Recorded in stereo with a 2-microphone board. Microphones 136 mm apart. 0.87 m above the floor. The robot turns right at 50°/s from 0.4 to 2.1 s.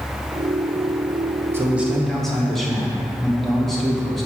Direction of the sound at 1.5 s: 20° right (ahead or behind).